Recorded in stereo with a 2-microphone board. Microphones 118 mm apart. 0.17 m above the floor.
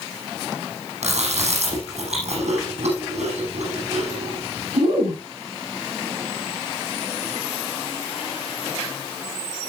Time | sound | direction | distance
1.0 | chewing | 75° right (ahead or behind) | 9 m